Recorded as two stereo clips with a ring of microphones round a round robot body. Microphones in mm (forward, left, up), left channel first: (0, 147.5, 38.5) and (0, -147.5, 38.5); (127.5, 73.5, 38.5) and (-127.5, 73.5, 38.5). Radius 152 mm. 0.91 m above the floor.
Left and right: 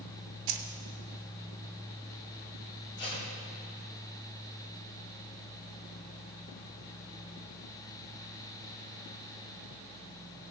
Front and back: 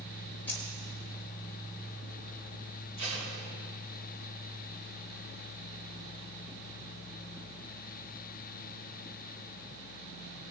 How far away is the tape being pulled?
About 4 m.